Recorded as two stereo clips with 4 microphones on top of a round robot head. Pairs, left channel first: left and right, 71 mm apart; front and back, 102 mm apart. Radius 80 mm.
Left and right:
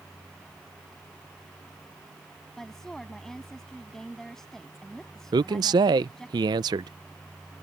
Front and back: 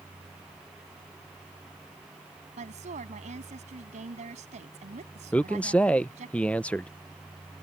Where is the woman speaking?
175° left.